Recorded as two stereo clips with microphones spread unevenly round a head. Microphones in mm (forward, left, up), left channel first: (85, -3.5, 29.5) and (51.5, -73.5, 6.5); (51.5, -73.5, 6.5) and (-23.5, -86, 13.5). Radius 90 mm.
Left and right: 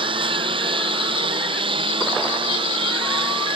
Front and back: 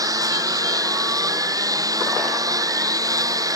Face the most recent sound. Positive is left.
turn(degrees=-130)